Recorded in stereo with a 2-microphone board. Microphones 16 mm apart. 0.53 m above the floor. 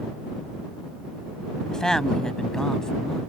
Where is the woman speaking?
50° left (ahead or behind); by 3.2 s 40° left (ahead or behind).